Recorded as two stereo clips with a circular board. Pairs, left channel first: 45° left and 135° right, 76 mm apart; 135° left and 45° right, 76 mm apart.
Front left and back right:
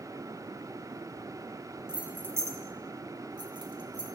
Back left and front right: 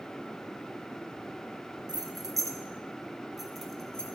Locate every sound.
1.9 s keys jangling: 60° right, 0.7 m; by 4.1 s 145° right, 1.1 m